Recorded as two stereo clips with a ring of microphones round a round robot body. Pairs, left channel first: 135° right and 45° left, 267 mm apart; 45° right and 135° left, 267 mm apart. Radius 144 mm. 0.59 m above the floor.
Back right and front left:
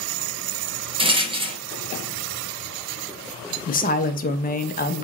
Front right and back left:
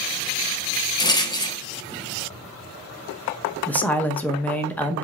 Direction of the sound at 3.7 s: 125° right.